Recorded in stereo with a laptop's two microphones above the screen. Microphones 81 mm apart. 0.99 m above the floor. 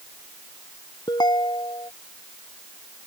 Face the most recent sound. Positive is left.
turn(degrees=65)  # may be behind; listen again after turning